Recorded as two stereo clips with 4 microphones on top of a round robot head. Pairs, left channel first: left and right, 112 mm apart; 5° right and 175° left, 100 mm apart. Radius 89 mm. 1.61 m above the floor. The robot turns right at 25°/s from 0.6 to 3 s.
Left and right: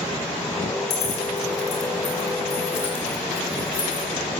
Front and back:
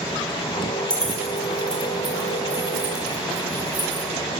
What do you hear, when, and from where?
0.9 s keys jangling: 75° left, 5 m; by 4.1 s 130° left, 5 m